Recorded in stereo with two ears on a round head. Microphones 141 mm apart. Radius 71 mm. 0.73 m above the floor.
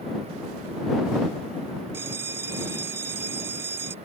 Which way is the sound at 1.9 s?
15° right (ahead or behind).